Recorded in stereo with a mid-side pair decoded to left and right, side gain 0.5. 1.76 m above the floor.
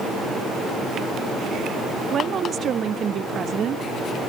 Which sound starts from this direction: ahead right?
A woman speaking, at 2.1 s.